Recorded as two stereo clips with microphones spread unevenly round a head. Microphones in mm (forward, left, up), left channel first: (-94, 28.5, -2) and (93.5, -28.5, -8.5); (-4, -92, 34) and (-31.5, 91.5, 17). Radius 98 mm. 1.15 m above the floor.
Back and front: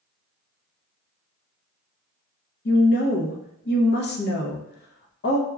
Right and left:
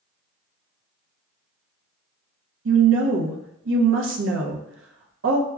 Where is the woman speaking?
120° left, 0.6 m.